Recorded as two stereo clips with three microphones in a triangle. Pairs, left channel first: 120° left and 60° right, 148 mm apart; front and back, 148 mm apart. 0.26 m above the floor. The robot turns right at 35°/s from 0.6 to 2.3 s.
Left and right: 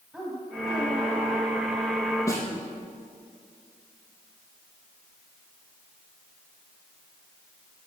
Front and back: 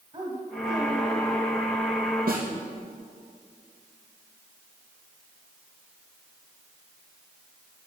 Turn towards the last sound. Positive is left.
turn(degrees=-170)